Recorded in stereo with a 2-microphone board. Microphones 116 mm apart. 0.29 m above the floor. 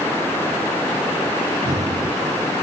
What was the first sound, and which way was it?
Breathing, 70° right (ahead or behind).